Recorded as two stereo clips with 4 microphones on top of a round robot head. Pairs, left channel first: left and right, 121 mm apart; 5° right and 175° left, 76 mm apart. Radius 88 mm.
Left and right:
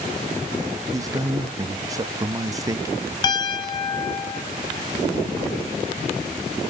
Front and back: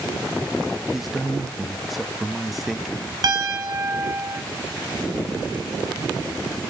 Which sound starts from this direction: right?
A man speaking, at 0.9 s.